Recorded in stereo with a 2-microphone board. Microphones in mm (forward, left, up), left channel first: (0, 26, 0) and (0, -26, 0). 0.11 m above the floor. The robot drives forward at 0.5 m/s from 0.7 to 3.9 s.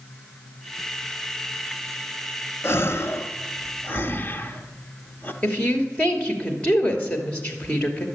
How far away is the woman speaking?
About 2.5 m.